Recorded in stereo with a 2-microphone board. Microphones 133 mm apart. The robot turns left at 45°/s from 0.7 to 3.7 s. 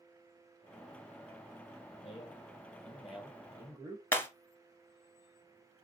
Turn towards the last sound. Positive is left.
turn(degrees=20)  # may be behind; listen again after turning